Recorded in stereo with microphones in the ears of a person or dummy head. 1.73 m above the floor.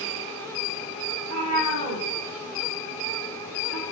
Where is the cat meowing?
45° right (ahead or behind), 1.6 m.